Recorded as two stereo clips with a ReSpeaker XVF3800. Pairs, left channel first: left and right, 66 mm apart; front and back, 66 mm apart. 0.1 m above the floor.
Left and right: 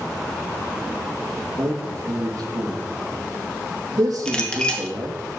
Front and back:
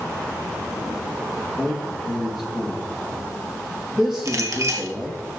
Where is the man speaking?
95° right, 3.5 m.